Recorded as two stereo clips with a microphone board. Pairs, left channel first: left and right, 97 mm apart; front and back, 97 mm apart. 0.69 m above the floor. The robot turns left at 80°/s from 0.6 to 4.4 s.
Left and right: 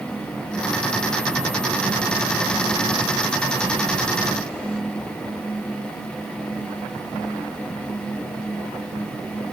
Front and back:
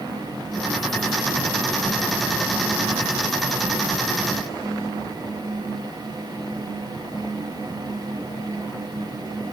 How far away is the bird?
I don't hear a bird.